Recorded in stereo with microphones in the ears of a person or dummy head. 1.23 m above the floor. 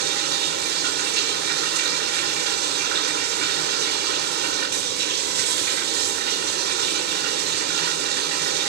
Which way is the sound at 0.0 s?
60° right (ahead or behind).